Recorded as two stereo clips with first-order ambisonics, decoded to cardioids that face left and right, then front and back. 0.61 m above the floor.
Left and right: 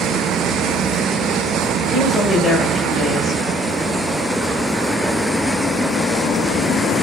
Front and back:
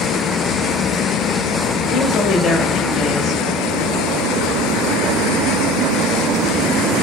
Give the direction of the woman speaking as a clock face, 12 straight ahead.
12 o'clock.